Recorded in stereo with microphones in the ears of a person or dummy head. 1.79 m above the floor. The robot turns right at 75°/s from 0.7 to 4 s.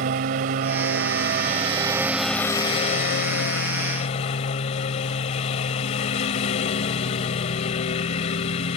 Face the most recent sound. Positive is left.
turn(degrees=135)